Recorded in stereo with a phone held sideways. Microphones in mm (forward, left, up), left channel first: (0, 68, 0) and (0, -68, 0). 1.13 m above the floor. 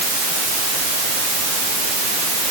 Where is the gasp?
I don't hear a gasp.